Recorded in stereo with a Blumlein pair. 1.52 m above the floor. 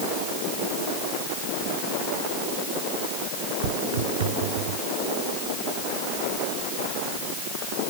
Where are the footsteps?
55° right; by 4.8 s 50° right.